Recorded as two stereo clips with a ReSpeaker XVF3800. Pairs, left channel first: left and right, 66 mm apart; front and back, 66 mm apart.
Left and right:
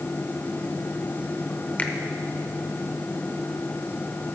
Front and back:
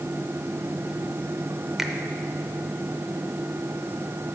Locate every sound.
1.8 s a finger snap: 110° left, 0.8 m